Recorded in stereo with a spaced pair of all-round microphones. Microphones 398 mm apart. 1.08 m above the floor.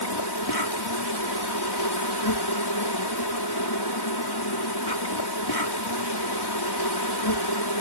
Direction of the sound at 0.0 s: 70° left (ahead or behind).